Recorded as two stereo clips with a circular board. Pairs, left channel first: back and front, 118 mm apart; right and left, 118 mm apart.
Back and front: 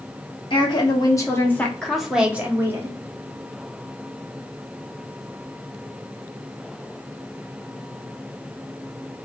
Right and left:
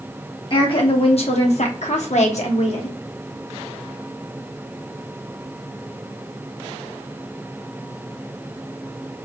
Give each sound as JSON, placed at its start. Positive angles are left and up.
{"t": 0.5, "sound": "a woman speaking", "azimuth_deg": -135, "distance_m": 1.1}